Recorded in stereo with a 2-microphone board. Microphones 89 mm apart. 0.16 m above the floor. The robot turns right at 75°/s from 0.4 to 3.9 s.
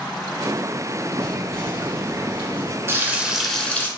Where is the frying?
45° right, 0.7 m; by 3.9 s 30° left, 0.7 m.